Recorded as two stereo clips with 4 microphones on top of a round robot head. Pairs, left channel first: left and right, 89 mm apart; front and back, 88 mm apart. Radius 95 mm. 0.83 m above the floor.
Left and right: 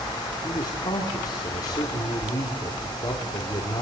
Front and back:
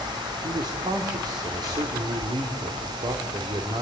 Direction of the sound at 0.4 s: 140° left.